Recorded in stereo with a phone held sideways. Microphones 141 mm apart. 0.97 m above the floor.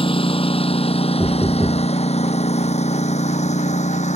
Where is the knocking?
5° right (ahead or behind).